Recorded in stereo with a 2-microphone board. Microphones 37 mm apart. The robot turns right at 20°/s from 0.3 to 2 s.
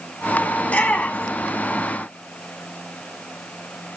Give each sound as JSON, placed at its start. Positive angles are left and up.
{"t": 0.6, "sound": "a shout", "side_deg": 40, "distance_m": 1.4}